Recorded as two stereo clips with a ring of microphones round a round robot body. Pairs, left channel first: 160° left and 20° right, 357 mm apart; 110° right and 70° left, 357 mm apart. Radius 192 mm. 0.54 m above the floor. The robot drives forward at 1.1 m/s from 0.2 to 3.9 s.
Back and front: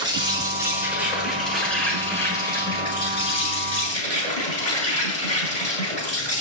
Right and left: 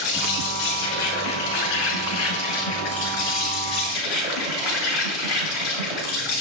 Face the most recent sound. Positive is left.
turn(degrees=-130)